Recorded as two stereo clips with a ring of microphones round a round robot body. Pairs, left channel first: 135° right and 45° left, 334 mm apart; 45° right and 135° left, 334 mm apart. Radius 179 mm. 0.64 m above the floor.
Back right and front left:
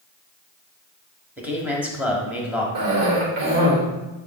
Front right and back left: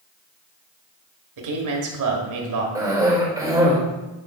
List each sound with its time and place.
1.4 s a man speaking: 130° left, 1.7 m
2.8 s a cough: 55° left, 2.5 m